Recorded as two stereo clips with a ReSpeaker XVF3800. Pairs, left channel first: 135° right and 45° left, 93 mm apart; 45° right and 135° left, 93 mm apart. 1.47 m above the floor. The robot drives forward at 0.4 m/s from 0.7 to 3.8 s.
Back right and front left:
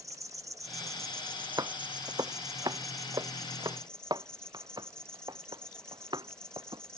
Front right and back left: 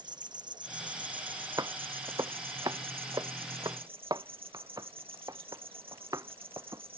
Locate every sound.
0.0 s an insect: 100° left; by 7.0 s 145° left
1.6 s footsteps: 90° left; by 6.8 s 85° left